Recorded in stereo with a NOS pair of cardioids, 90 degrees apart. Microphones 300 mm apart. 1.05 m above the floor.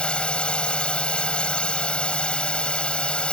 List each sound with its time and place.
0.0 s a drone: 5° left